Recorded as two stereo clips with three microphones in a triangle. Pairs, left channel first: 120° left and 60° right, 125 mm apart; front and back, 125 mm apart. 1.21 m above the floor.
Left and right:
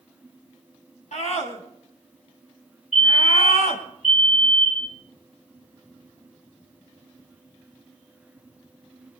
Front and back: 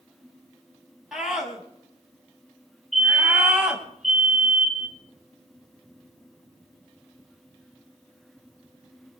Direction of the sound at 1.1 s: 95° left.